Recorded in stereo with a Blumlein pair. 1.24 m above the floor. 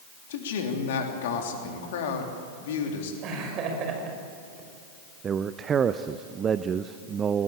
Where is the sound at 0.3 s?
55° left, 3 m.